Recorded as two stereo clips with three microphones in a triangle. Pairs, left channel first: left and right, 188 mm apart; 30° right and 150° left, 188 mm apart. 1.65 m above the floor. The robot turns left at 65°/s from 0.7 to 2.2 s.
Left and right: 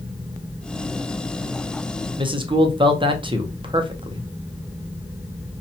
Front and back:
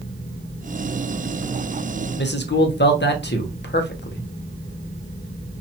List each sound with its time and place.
2.2 s a man speaking: 25° right, 0.6 m